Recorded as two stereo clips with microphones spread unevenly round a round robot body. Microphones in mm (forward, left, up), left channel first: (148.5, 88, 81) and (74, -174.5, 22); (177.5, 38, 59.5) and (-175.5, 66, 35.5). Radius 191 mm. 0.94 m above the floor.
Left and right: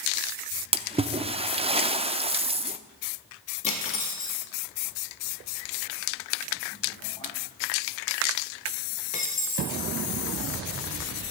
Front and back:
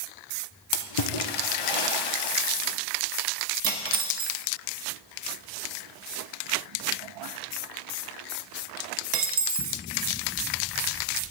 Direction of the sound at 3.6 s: 145° left.